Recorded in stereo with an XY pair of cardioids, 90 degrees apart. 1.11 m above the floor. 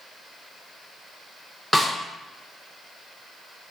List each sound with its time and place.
1.7 s a snare drum: straight ahead, 0.9 m